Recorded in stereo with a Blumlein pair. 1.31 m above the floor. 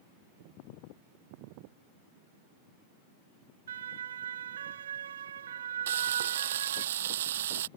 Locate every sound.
3.7 s a siren: 65° right
5.9 s frying: 60° right